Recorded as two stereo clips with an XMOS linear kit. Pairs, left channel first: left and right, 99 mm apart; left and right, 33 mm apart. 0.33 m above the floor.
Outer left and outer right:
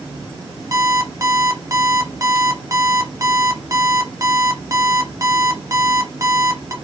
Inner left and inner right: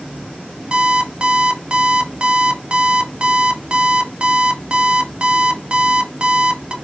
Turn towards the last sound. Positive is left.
turn(degrees=-30)  # may be behind; listen again after turning